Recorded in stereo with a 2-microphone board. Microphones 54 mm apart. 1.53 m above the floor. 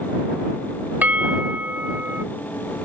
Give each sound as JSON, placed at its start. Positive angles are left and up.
{"t": 1.0, "sound": "a bell", "side_deg": -30}